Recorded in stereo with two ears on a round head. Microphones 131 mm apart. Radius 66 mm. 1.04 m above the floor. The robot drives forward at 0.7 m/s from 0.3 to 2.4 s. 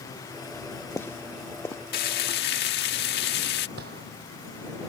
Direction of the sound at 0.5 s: 15° left (ahead or behind).